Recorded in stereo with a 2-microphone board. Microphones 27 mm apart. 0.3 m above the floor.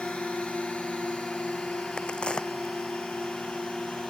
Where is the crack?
35° left (ahead or behind).